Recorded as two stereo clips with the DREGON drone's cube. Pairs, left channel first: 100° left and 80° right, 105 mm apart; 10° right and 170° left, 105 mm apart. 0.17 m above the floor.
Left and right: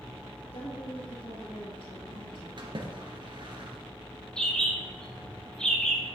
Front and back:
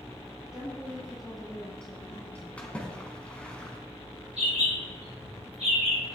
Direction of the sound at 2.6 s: 85° right.